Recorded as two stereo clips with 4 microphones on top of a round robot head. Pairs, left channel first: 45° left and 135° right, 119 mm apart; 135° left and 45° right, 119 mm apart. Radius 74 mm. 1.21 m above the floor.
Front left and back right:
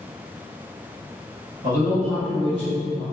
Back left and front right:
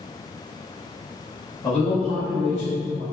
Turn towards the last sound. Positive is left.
turn(degrees=150)